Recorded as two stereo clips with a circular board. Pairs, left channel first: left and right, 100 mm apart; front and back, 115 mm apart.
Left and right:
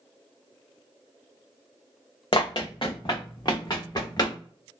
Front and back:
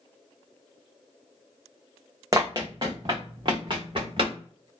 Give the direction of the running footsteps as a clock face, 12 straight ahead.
8 o'clock.